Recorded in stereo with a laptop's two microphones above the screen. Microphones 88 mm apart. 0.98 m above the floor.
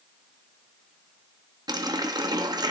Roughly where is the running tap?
Right.